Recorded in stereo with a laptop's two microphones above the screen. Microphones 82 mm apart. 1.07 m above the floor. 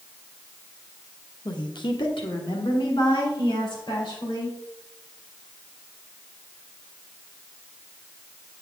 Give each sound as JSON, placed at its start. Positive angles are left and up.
{"t": 1.4, "sound": "a woman speaking", "side_deg": 55, "distance_m": 0.9}